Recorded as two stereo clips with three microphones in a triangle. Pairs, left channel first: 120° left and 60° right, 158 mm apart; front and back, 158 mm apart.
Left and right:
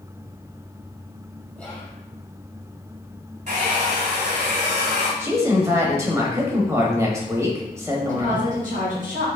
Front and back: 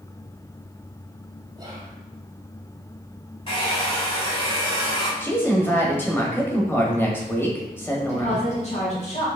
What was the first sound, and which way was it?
Whispering, 165° right.